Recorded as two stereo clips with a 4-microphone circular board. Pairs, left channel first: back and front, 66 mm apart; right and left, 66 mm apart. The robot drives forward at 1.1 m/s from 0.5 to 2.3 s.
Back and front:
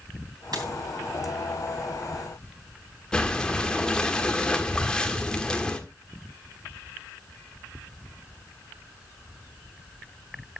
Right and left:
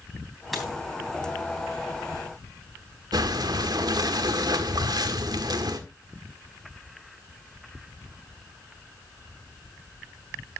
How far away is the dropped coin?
About 3 m.